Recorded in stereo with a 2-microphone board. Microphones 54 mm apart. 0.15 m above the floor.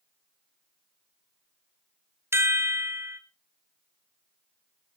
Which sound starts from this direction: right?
A chime, at 2.3 s.